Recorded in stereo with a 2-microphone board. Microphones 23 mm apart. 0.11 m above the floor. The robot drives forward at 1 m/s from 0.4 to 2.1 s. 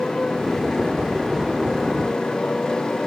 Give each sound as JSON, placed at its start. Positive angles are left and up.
{"t": 0.0, "sound": "a motorcycle", "side_deg": 30}